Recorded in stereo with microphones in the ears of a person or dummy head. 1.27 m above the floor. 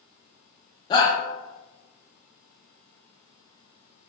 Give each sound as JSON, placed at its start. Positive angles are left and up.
{"t": 0.9, "sound": "a shout", "side_deg": 25, "distance_m": 0.6}